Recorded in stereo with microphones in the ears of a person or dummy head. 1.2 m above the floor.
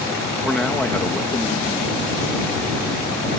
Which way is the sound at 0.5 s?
Centre (ahead or behind).